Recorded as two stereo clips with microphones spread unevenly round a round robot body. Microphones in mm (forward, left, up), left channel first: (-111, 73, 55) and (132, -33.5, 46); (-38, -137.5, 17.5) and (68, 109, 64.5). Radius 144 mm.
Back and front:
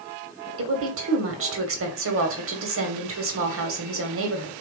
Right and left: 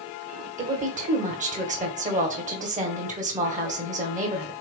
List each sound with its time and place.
0.6 s a woman speaking: straight ahead, 2.5 m